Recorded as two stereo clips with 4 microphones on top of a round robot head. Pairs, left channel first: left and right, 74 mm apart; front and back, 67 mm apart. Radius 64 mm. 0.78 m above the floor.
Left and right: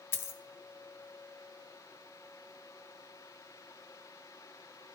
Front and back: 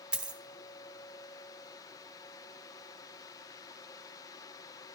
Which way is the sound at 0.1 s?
115° left.